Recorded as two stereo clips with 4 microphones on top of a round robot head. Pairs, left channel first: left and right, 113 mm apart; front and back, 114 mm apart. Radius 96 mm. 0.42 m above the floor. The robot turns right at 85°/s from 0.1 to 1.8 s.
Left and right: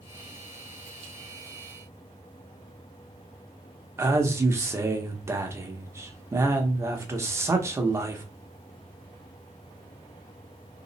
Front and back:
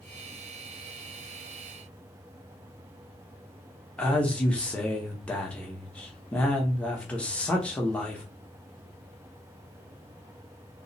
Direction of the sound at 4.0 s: 65° right.